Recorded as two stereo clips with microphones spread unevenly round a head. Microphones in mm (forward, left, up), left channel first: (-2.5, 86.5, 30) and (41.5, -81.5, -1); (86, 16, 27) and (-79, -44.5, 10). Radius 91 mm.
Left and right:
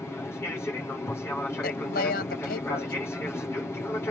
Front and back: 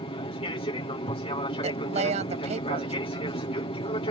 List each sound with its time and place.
0.0 s an aircraft: 25° left
1.6 s a woman speaking: 145° left